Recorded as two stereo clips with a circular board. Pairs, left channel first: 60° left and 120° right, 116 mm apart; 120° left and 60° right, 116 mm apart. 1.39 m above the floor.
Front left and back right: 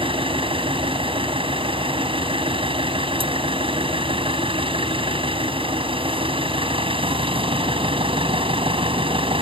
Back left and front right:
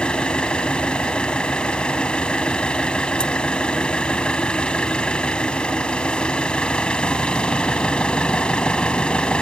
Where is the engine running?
160° right.